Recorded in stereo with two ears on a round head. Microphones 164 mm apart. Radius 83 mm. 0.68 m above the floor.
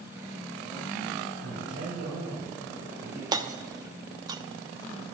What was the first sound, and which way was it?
A man speaking, 70° right (ahead or behind).